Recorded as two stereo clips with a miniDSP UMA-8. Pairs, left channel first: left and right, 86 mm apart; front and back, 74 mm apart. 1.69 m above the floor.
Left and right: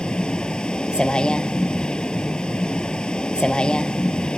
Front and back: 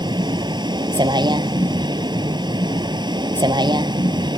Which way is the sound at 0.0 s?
170° left.